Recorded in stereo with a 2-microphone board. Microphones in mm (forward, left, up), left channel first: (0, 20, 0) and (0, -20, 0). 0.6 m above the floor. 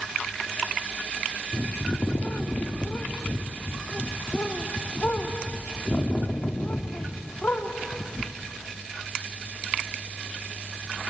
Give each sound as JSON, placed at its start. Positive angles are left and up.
{"t": 1.5, "sound": "a bird", "side_deg": 50, "distance_m": 0.8}